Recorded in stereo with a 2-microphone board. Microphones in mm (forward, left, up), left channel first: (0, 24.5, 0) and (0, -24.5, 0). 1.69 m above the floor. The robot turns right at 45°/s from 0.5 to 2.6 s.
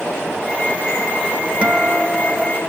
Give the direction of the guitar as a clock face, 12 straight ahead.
1 o'clock.